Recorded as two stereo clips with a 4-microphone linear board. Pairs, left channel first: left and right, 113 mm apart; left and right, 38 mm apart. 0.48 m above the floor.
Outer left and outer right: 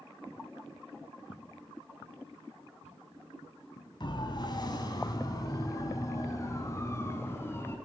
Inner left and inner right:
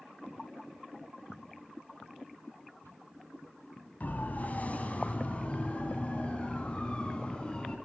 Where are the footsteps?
55° left (ahead or behind), 4 m; by 4.0 s 70° left (ahead or behind), 6.5 m.